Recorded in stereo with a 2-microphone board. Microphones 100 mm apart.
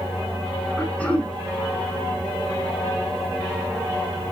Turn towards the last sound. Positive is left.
turn(degrees=10)  # may be behind; listen again after turning